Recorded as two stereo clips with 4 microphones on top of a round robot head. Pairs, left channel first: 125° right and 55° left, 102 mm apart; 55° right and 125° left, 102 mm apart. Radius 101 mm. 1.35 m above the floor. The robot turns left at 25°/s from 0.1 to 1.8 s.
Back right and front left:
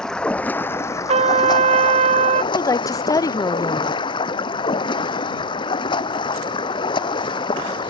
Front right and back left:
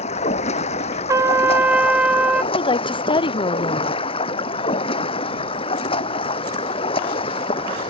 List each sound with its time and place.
0.0 s running water: 45° right; by 7.9 s 85° right
1.1 s a trumpet: 65° left; by 2.4 s 45° left
2.5 s a woman speaking: 80° right